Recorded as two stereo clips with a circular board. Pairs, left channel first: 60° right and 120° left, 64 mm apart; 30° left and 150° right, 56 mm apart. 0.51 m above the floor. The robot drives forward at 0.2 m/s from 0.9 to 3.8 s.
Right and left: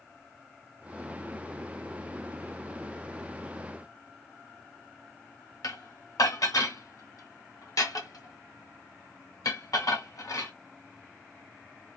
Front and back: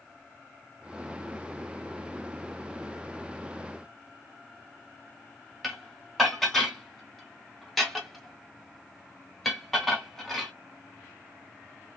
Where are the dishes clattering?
60° right, 0.9 m.